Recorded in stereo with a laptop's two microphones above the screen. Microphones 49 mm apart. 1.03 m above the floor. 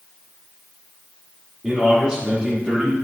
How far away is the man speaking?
About 2 m.